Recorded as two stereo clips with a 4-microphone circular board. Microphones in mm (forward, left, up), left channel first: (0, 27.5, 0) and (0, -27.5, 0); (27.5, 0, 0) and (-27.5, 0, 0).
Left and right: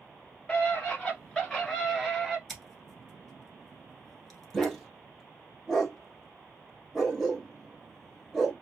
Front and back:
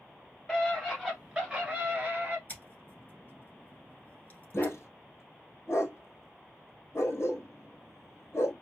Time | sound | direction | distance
0.5 | a scream | 65° left | 1.6 m
2.5 | scissors | 5° left | 1.2 m
4.5 | a dog barking | 10° left | 1.0 m